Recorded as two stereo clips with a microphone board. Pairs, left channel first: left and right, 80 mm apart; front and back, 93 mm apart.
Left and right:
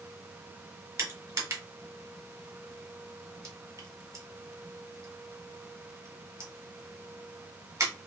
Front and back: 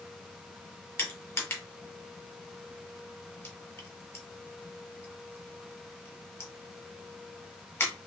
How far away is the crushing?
About 1.4 m.